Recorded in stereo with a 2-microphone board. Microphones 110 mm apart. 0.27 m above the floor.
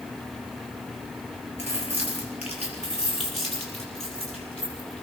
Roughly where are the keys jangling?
Left.